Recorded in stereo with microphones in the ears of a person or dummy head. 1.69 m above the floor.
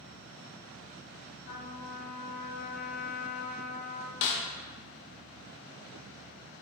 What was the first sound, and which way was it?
A trumpet, 75° left (ahead or behind).